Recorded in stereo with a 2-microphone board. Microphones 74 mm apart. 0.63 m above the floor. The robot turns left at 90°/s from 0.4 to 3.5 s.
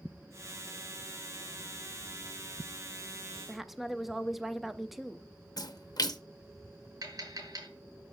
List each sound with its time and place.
3.5 s a woman speaking: centre (ahead or behind), 0.5 m
5.6 s a splash: 60° left (ahead or behind), 0.7 m
7.0 s tapping: 60° right (ahead or behind), 3 m